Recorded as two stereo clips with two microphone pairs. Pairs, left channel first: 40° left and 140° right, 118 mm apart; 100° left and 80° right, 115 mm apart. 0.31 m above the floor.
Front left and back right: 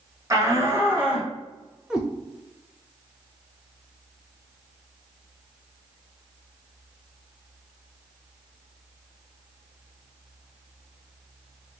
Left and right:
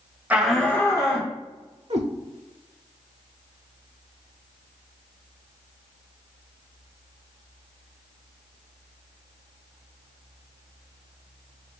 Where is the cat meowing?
55° right, 0.8 m.